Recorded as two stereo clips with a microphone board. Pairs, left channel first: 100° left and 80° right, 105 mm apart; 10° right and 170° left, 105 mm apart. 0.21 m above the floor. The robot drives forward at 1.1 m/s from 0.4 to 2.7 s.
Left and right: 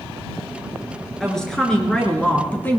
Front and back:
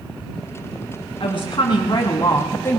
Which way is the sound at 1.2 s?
15° left.